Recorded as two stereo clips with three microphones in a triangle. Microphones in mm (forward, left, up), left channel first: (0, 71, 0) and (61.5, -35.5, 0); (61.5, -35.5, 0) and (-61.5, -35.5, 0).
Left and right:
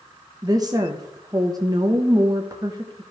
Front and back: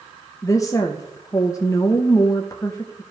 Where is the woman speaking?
40° right, 0.7 m.